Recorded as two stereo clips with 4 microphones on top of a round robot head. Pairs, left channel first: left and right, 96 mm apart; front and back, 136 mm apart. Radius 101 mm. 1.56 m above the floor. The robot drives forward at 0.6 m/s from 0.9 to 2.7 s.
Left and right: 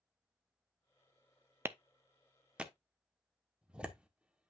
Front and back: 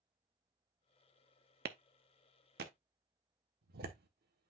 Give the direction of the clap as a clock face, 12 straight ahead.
5 o'clock.